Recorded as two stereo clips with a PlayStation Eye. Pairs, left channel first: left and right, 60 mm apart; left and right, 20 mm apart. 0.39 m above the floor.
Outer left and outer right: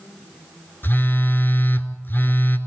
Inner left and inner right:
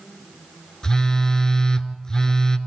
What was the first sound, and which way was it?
A phone buzzing, 35° left (ahead or behind).